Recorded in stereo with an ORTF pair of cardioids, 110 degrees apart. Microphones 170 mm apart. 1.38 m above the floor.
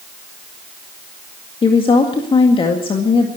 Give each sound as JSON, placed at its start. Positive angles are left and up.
{"t": 1.6, "sound": "a woman speaking", "azimuth_deg": 30, "distance_m": 2.0}